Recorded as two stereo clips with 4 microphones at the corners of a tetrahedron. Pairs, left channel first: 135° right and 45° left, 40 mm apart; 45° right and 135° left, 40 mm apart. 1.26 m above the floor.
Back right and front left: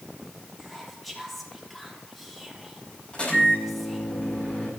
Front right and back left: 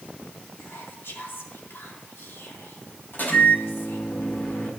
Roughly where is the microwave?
Right.